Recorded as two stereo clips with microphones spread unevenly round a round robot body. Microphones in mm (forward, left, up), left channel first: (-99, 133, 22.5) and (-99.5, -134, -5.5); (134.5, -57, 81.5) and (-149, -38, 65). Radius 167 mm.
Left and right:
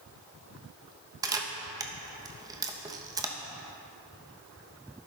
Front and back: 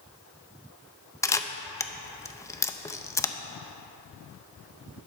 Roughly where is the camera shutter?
Right.